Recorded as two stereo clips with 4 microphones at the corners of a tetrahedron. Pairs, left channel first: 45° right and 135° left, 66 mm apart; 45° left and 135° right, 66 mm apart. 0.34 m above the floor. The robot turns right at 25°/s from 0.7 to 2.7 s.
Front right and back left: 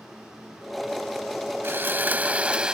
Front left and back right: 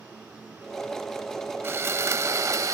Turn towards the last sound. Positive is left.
turn(degrees=-155)